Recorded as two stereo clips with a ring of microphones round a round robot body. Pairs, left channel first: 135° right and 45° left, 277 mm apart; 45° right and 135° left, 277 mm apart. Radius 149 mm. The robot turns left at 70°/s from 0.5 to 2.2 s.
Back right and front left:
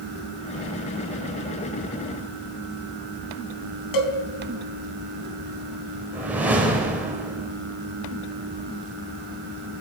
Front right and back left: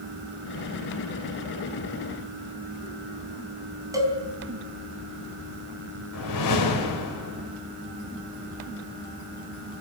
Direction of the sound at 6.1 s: 40° right.